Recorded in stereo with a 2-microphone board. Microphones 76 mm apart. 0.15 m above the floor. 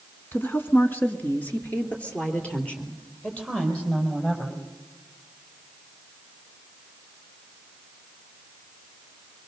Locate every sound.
0.3 s a woman speaking: 30° left (ahead or behind), 1.5 m; by 4.6 s 10° left (ahead or behind), 6 m